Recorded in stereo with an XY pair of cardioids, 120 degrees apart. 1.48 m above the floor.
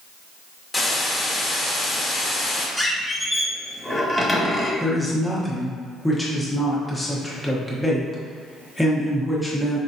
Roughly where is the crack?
I don't hear a crack.